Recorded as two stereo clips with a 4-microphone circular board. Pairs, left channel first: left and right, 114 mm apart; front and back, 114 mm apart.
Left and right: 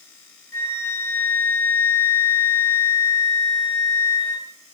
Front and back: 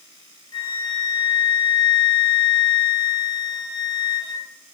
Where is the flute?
25° left, 0.6 m.